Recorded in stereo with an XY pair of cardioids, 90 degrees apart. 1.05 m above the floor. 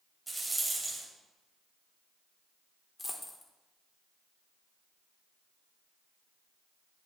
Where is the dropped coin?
25° left, 1.4 m.